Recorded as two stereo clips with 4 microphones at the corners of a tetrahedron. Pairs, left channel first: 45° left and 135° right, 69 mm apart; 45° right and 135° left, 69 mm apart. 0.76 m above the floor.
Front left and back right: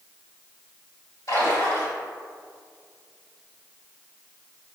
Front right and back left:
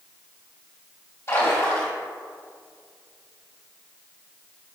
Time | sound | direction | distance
1.3 | a splash | 5° left | 1.9 m